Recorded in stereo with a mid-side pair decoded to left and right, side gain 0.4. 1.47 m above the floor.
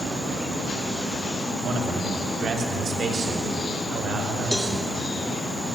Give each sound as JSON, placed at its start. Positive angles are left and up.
{"t": 1.6, "sound": "a man speaking", "azimuth_deg": -60, "distance_m": 3.0}
{"t": 4.5, "sound": "a cowbell", "azimuth_deg": 0, "distance_m": 3.5}